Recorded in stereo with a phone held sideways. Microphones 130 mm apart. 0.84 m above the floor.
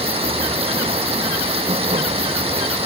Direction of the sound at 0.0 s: 45° right (ahead or behind).